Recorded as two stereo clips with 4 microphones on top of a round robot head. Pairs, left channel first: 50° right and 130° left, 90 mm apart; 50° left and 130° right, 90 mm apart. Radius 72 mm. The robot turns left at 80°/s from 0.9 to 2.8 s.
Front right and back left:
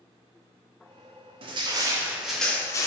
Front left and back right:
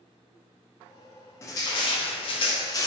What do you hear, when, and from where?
1.4 s crushing: 110° left, 0.5 m; by 2.9 s straight ahead, 0.5 m